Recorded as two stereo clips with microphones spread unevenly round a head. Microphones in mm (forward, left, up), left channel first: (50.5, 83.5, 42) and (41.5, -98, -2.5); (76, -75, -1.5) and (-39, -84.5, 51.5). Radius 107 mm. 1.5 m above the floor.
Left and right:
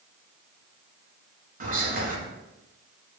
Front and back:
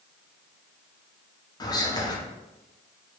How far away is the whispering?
About 1.2 m.